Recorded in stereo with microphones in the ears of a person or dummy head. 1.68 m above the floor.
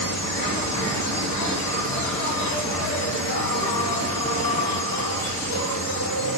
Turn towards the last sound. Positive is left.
turn(degrees=65)  # may be behind; listen again after turning